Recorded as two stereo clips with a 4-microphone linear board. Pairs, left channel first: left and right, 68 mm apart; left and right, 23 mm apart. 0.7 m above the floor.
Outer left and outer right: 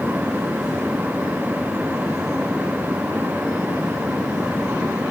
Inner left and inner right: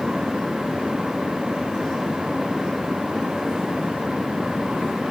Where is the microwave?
I don't hear a microwave.